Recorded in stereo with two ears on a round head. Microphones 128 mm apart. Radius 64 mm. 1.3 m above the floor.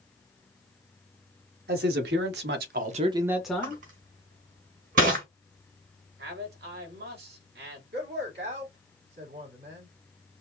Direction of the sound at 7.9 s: 85° right.